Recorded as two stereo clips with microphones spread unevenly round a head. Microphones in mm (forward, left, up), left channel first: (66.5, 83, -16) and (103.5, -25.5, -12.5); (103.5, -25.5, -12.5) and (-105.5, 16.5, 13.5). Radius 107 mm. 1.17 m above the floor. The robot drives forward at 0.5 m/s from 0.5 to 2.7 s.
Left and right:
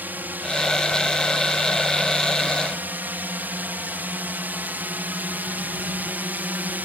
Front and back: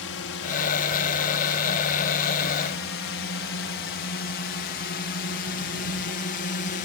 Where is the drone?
Straight ahead; by 6.9 s 5° right.